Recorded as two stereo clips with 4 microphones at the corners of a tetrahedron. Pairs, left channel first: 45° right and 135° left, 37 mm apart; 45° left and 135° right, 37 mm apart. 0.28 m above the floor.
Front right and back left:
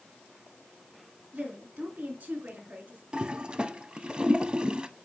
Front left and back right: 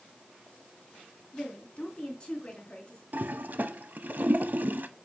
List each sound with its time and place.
1.3 s a woman speaking: 105° left, 3.5 m
3.1 s a toilet flushing: 165° right, 0.6 m